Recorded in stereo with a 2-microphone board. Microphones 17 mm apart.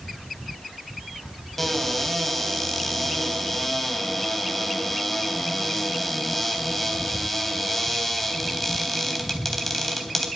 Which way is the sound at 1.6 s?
10° left (ahead or behind).